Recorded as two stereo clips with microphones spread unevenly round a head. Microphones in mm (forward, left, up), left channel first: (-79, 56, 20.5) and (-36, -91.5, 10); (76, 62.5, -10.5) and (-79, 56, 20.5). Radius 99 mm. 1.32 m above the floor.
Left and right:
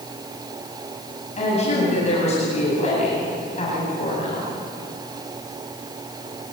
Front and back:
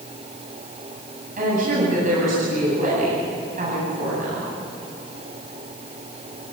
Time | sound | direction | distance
1.4 | a woman speaking | 150° left | 9 m